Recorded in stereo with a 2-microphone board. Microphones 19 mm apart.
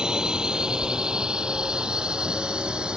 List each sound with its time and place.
0.0 s a drone: 40° right (ahead or behind); by 3.0 s 55° right (ahead or behind)